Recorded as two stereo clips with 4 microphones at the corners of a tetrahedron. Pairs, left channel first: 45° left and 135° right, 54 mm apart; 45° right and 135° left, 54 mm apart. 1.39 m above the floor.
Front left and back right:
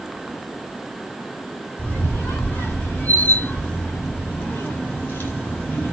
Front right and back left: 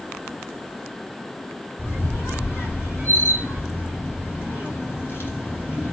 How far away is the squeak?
About 2.5 m.